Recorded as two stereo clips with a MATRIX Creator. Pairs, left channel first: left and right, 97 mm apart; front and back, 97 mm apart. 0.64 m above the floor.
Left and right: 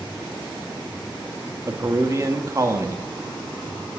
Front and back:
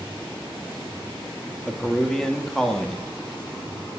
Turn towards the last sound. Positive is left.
turn(degrees=-80)